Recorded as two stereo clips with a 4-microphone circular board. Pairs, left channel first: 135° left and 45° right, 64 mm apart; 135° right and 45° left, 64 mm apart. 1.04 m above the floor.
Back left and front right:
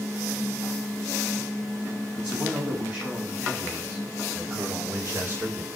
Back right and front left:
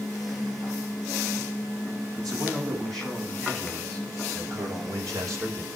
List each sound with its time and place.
2.2 s a man speaking: 25° left, 8.5 m; by 5.7 s 10° left, 3.5 m